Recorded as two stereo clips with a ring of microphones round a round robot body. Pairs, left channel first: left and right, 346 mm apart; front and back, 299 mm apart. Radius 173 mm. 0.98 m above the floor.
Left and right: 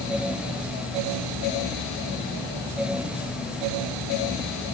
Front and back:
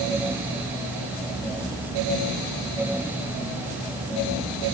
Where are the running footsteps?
No running footsteps in this recording.